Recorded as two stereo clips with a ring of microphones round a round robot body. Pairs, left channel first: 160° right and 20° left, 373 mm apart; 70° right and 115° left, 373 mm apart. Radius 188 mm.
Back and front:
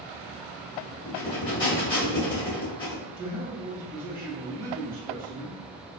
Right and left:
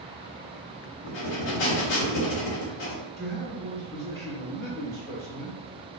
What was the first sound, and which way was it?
Breathing, 80° right.